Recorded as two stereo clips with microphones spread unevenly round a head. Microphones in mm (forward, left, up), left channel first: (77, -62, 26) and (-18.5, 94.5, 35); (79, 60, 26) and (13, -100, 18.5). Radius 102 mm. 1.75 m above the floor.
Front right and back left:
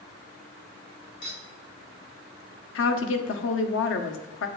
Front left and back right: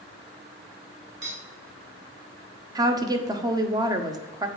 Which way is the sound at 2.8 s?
45° right.